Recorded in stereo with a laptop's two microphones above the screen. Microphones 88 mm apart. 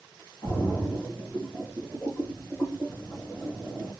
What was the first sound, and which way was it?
A splash, 30° left (ahead or behind).